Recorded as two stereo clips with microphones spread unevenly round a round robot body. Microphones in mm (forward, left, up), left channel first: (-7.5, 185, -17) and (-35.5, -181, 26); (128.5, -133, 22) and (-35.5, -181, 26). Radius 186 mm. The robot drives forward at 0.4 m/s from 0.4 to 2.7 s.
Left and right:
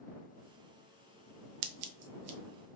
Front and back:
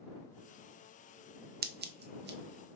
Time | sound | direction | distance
1.6 | scissors | 130° right | 0.5 m